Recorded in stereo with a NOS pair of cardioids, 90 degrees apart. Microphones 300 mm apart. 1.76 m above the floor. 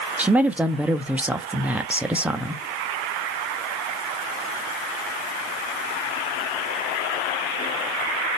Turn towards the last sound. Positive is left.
turn(degrees=-5)